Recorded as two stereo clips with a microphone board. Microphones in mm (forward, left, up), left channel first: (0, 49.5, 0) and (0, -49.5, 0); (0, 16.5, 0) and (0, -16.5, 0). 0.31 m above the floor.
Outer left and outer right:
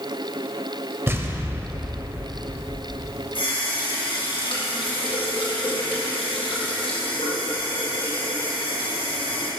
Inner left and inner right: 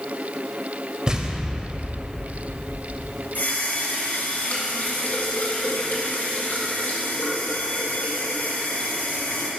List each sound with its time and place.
1.1 s an explosion: 25° right (ahead or behind), 0.6 m
3.4 s a running tap: 65° left (ahead or behind), 1.8 m